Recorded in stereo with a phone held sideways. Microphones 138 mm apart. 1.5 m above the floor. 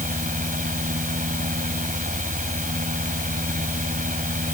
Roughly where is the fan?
Right.